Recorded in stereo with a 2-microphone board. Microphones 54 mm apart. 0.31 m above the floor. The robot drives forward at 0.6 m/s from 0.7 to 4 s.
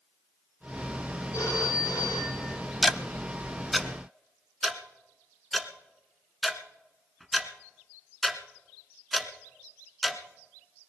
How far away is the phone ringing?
About 5.5 m.